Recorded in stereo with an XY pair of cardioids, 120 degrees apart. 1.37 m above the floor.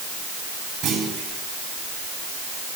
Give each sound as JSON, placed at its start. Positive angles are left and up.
{"t": 0.8, "sound": "a clunk", "azimuth_deg": -65, "distance_m": 9.5}